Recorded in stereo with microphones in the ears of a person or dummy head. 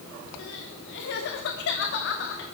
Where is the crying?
65° left (ahead or behind), 3 m.